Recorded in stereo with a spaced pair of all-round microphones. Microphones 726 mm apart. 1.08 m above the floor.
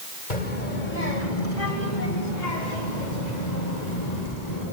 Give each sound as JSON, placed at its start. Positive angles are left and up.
{"t": 0.3, "sound": "a child speaking", "side_deg": 75, "distance_m": 3.5}